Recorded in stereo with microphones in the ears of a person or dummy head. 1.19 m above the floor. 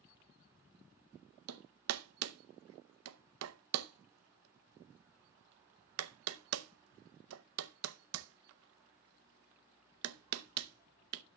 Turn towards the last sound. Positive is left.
turn(degrees=-80)